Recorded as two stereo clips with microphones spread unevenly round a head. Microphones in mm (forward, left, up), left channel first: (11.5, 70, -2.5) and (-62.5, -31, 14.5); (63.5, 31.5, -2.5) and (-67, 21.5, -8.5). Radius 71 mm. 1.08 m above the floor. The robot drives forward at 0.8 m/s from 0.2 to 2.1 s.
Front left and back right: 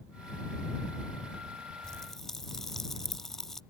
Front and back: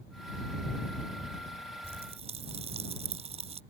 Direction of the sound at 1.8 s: 140° left.